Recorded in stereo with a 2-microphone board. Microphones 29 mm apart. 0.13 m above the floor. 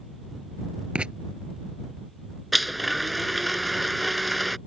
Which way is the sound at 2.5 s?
Centre (ahead or behind).